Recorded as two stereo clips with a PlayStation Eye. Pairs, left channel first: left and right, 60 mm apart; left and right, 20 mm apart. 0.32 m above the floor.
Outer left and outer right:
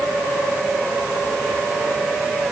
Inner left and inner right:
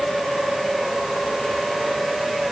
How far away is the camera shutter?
I don't hear a camera shutter.